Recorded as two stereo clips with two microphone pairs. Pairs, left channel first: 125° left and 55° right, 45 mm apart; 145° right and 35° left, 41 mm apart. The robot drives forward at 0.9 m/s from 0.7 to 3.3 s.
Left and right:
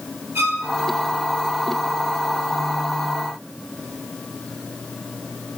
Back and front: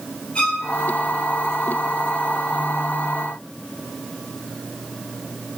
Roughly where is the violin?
Right.